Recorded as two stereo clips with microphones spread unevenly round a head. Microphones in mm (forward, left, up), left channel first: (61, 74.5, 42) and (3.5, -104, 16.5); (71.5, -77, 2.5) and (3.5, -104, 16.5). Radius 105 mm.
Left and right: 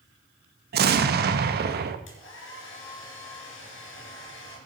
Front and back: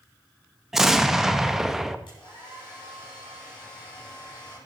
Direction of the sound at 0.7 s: 75° right.